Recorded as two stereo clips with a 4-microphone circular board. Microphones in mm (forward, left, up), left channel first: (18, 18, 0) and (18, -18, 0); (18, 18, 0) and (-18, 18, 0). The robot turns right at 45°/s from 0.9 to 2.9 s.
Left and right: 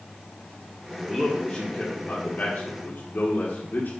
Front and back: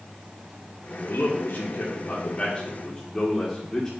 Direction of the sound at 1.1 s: Straight ahead.